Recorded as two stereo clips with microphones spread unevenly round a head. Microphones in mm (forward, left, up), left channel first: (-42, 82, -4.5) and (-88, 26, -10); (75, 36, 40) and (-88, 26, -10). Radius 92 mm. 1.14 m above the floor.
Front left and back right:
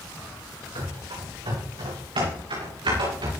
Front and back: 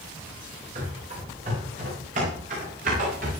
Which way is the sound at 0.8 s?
115° right.